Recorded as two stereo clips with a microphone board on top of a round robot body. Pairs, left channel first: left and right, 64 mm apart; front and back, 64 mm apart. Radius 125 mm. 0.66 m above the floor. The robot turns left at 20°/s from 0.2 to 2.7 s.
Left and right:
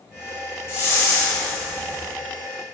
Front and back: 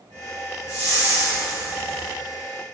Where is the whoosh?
55° left, 1.9 m; by 2.1 s 25° left, 1.9 m.